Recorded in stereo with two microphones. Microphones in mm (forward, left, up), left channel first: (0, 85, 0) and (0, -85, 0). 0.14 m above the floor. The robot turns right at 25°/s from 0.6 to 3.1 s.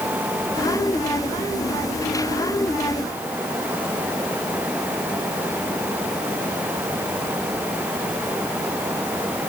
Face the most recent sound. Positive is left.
No sound to turn to.